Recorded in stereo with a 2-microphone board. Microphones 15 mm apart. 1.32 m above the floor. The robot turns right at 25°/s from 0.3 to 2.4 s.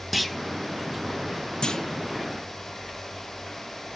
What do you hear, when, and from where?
0.1 s a clunk: 10° right (ahead or behind), 1.0 m
1.6 s a clunk: 60° left (ahead or behind), 0.8 m; by 2.0 s 55° left (ahead or behind), 0.8 m